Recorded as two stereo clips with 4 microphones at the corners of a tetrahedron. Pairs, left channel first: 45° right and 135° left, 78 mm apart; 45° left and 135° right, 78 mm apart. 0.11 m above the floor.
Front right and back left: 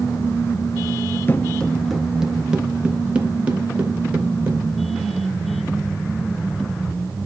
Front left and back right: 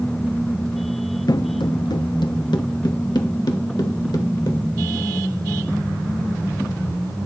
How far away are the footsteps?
About 0.5 m.